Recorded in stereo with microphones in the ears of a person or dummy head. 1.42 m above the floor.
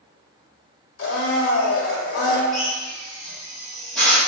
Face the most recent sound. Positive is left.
turn(degrees=0)  # may be behind; listen again after turning